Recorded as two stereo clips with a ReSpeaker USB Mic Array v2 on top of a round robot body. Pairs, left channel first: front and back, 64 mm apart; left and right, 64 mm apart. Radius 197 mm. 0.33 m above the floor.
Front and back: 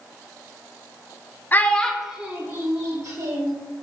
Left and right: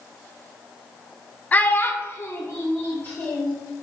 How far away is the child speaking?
About 0.6 m.